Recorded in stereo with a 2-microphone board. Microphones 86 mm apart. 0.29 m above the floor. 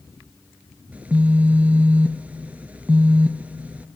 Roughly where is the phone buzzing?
Centre.